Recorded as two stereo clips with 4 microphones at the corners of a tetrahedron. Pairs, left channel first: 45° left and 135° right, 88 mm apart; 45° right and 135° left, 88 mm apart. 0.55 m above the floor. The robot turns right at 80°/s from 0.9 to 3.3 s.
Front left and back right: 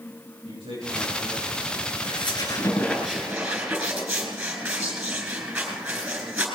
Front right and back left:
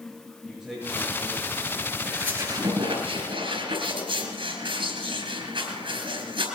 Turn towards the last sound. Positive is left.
turn(degrees=145)